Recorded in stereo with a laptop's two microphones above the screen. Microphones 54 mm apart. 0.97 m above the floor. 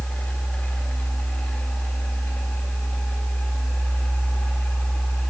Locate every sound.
0.0 s a fan: 35° left (ahead or behind), 2 m